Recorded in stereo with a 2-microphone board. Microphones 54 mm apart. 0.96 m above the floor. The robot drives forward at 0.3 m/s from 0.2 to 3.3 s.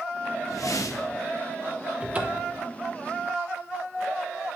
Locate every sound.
0.5 s a whoosh: 80° left, 0.7 m; by 1.2 s 75° left (ahead or behind), 0.8 m
2.0 s a cupboard door: 25° right (ahead or behind), 0.9 m